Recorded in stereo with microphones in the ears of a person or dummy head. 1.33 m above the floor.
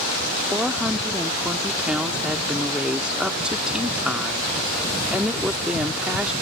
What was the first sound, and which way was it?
A woman speaking, 10° right (ahead or behind).